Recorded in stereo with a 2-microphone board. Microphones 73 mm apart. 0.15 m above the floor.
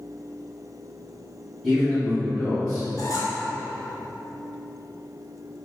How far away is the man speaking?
About 1.8 m.